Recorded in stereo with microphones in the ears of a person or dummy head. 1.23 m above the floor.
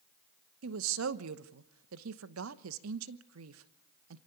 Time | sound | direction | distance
0.6 | a woman speaking | 70° right (ahead or behind) | 0.9 m